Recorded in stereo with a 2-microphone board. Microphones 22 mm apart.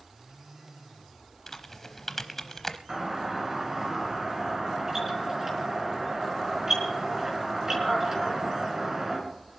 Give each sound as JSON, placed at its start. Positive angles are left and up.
{"t": 1.5, "sound": "typing on a keyboard", "side_deg": 15, "distance_m": 0.8}
{"t": 2.9, "sound": "a doorbell", "side_deg": -25, "distance_m": 3.5}